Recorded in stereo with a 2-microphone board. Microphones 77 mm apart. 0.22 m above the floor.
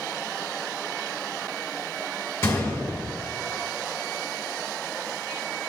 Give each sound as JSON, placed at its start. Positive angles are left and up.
{"t": 2.4, "sound": "a gunshot", "side_deg": 30, "distance_m": 1.2}